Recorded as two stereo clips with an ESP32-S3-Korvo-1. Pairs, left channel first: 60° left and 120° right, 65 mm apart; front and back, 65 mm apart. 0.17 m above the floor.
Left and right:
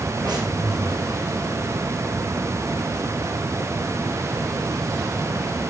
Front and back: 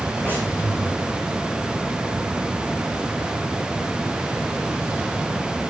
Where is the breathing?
120° right, 6.5 m.